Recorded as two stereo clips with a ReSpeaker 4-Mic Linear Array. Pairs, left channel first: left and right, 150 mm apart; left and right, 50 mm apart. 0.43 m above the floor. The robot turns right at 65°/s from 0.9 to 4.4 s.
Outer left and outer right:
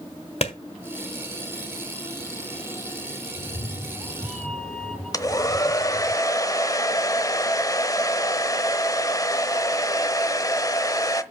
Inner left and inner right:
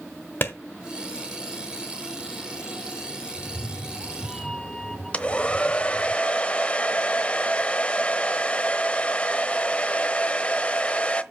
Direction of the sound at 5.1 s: 25° left (ahead or behind).